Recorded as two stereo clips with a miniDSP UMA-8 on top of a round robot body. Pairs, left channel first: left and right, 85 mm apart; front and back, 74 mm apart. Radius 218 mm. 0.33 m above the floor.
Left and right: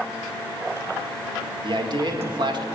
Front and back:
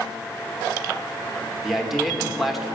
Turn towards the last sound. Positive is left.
turn(degrees=-90)